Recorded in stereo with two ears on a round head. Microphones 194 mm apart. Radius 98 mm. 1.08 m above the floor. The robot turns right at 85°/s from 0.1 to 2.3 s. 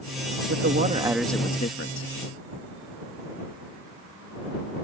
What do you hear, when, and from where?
0.5 s a man speaking: 65° right; by 2.1 s 70° left